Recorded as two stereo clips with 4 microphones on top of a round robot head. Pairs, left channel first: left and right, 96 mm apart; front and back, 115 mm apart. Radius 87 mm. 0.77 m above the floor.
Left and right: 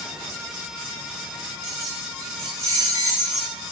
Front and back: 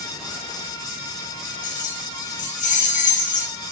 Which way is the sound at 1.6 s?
20° right.